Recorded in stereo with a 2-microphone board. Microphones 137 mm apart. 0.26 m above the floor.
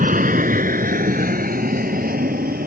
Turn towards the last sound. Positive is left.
turn(degrees=-75)  # may be behind; listen again after turning